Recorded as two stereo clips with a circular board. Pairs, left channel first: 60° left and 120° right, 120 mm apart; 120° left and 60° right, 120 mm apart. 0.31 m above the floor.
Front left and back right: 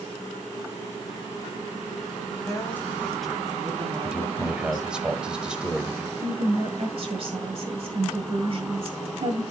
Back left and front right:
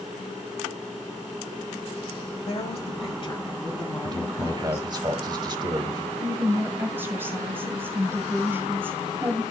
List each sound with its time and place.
2.5 s a woman speaking: 120° left, 1.8 m; by 4.9 s 175° right, 2.5 m
4.0 s a man speaking: 40° right, 1.0 m
6.2 s a woman speaking: 130° right, 1.8 m